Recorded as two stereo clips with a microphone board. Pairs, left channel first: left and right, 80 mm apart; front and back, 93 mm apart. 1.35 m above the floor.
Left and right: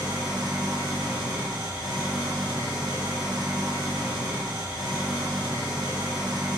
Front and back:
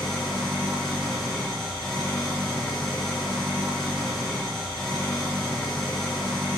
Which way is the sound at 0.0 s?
85° right.